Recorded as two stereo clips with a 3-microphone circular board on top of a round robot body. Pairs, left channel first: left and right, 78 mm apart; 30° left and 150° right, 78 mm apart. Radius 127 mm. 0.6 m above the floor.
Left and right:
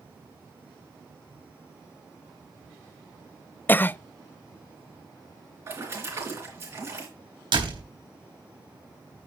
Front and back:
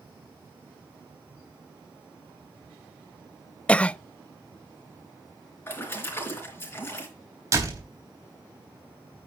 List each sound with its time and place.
3.7 s a cough: 80° left, 0.6 m
5.7 s a splash: 30° right, 4 m
7.5 s a door slam: 100° right, 4 m